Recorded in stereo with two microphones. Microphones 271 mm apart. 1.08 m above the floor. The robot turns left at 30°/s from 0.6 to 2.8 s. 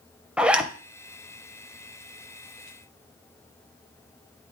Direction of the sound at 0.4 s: 5° right (ahead or behind).